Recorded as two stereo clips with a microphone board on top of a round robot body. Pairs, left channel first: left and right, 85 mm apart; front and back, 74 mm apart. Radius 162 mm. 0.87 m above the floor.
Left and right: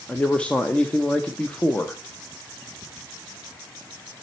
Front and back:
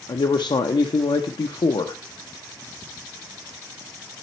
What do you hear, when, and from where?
0.1 s a man speaking: 10° left, 0.6 m